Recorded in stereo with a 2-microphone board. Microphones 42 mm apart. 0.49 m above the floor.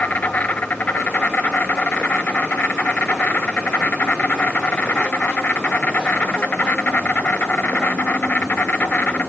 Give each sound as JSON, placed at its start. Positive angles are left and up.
{"t": 0.0, "sound": "an insect", "side_deg": 40, "distance_m": 1.1}